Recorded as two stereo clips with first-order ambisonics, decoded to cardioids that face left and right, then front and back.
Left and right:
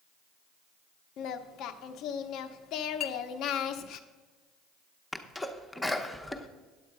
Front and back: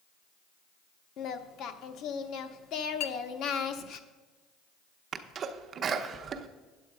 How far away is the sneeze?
About 0.7 m.